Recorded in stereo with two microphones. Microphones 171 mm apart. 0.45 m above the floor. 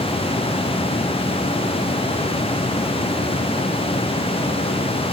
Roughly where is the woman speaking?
No woman speaking in this recording.